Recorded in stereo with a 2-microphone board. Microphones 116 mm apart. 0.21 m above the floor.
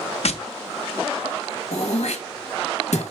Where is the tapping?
70° left (ahead or behind), 0.6 m.